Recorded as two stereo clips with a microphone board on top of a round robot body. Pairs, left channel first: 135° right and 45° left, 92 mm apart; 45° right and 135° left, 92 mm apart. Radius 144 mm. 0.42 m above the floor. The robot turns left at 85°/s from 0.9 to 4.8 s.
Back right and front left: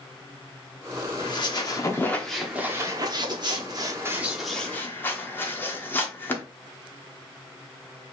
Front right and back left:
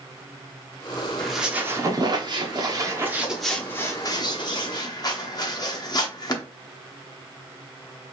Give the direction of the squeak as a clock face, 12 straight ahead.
4 o'clock.